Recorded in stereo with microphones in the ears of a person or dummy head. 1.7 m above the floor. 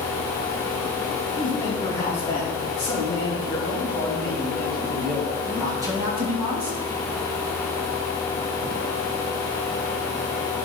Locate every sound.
1.4 s a man speaking: 20° left (ahead or behind), 4.5 m; by 6.8 s 35° right (ahead or behind), 2 m